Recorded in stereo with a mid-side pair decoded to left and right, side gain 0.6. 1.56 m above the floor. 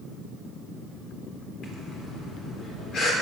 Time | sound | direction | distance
1.6 | breathing | 50° left | 3.5 m